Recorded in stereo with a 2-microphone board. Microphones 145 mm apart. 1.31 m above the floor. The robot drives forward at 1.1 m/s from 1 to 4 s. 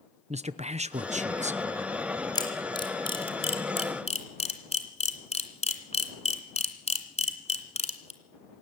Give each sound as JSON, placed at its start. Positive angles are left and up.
{"t": 0.3, "sound": "a man speaking", "side_deg": -50, "distance_m": 0.8}
{"t": 2.4, "sound": "a camera shutter", "side_deg": 30, "distance_m": 3.5}